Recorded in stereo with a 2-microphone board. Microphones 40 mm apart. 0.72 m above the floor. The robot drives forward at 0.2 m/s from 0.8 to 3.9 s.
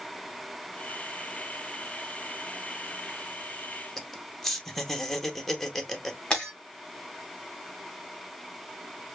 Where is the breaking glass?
20° left (ahead or behind), 2.5 m.